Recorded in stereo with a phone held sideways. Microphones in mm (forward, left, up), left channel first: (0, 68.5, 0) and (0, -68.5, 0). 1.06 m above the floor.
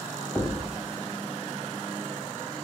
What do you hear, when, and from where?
0.3 s a thud: 5° left (ahead or behind), 1.2 m